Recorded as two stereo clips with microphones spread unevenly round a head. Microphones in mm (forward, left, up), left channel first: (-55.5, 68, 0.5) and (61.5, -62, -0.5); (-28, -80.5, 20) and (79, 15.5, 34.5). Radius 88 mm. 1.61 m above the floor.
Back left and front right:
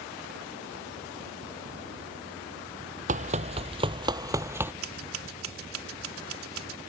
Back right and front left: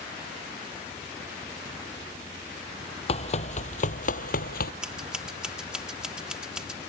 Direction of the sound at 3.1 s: 95° right.